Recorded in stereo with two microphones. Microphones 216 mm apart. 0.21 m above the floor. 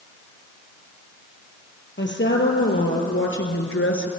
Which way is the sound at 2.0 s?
55° left (ahead or behind).